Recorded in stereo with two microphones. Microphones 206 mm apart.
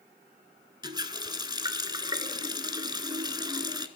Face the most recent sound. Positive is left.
turn(degrees=-20)  # may be behind; listen again after turning